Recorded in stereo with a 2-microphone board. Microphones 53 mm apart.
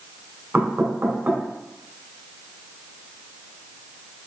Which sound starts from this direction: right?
Knocking, at 0.5 s.